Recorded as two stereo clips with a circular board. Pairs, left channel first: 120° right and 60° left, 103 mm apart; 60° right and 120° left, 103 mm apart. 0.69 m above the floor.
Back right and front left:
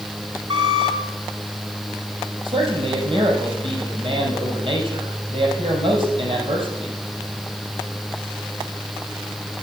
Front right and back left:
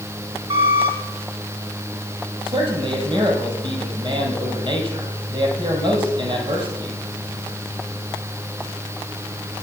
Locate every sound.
0.5 s a squeak: 95° left, 3 m
2.5 s a man speaking: 85° left, 4.5 m